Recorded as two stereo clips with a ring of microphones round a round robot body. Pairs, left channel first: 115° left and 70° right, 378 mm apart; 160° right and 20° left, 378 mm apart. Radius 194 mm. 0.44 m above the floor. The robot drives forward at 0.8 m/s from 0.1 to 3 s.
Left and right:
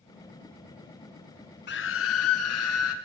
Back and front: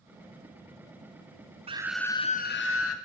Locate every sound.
1.7 s a scream: 80° left, 0.8 m; by 2.9 s 160° left, 1.3 m